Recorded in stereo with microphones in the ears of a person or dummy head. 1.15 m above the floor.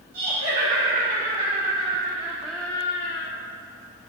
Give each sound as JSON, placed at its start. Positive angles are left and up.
{"t": 0.1, "sound": "laughter", "side_deg": -45, "distance_m": 4.0}